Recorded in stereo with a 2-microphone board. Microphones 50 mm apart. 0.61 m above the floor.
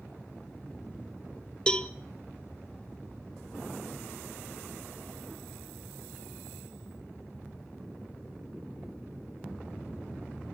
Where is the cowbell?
20° left (ahead or behind), 0.8 m.